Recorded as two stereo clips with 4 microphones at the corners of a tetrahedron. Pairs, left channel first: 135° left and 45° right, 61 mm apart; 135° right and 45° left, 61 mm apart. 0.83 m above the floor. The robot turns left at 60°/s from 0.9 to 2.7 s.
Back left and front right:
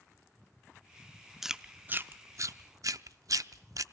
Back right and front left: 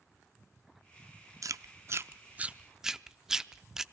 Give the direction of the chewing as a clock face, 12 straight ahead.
11 o'clock.